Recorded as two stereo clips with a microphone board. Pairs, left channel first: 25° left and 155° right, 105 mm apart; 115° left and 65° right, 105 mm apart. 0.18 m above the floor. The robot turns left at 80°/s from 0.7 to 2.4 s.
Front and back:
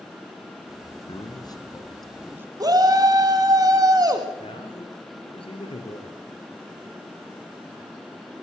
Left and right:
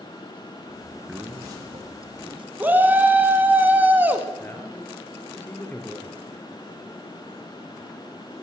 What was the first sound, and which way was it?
A man speaking, 15° left.